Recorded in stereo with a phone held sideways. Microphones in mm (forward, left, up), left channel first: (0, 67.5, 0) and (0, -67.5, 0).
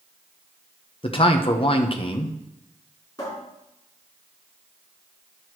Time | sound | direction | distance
1.0 | a man speaking | 40° left (ahead or behind) | 1.0 m
3.2 | a cupboard door | 25° left (ahead or behind) | 4.5 m